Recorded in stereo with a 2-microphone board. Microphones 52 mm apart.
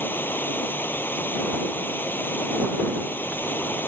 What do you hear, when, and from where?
0.0 s running water: 40° left (ahead or behind)